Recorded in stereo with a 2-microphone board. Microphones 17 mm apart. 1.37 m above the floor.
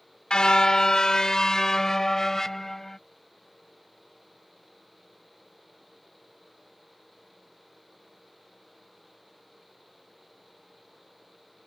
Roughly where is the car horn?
Left.